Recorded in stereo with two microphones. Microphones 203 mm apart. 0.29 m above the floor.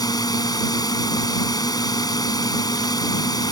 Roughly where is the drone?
Centre.